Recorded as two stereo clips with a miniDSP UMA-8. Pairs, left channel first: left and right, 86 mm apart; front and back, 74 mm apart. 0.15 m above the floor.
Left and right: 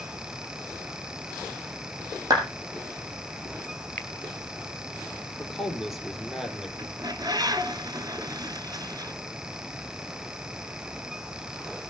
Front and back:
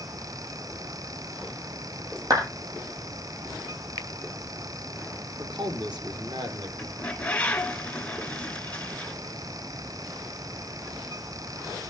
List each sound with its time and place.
2.3 s a clap: 140° right, 7 m
4.0 s a finger snap: 160° left, 2 m
5.4 s a man speaking: straight behind, 5 m
6.8 s a bird: 70° right, 1.2 m